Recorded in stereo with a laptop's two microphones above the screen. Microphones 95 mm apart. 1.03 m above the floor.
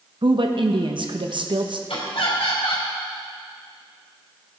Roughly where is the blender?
No blender in this recording.